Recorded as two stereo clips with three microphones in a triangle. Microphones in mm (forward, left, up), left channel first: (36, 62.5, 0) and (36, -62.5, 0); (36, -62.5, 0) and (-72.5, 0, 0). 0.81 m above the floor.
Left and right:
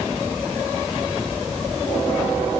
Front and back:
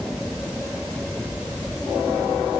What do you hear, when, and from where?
Only background noise.